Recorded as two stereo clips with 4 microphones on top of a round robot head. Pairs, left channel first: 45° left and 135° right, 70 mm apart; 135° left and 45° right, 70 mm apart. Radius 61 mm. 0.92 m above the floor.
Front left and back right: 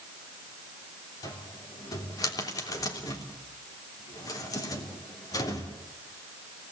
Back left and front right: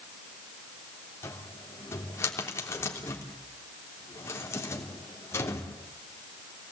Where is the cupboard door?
80° left, 3 m.